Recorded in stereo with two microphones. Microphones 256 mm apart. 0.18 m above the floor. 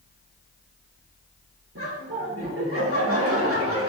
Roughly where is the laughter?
Right.